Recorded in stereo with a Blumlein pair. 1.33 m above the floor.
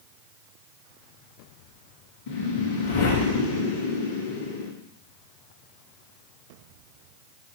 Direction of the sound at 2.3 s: 55° left.